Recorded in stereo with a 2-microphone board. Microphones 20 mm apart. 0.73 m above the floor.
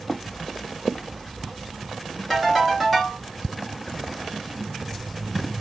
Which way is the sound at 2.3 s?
Centre (ahead or behind).